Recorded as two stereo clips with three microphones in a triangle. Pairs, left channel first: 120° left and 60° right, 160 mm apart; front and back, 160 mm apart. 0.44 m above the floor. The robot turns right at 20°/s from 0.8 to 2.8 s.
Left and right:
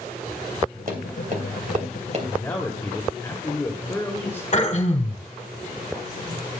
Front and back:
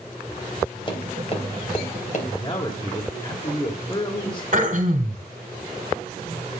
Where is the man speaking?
40° left, 2 m; by 4.4 s 50° left, 2 m.